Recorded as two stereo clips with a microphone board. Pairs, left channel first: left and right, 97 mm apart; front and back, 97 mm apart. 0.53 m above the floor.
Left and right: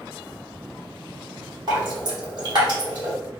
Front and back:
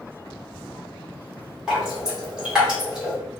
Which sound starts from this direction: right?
Dripping, at 1.7 s.